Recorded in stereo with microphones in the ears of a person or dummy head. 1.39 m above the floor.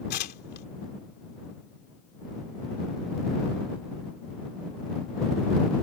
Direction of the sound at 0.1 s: 50° left (ahead or behind).